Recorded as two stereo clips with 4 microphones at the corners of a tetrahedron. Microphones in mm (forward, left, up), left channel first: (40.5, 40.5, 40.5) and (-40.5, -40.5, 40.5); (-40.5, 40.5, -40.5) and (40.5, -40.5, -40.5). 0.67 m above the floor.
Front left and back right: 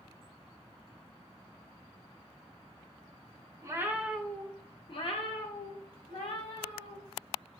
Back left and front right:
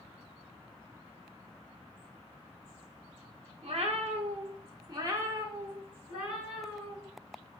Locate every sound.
3.6 s a cat meowing: 75° right, 0.6 m; by 7.0 s 40° left, 1.7 m